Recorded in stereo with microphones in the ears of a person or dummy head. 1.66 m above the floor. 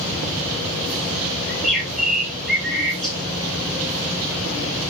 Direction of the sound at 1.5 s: 5° left (ahead or behind).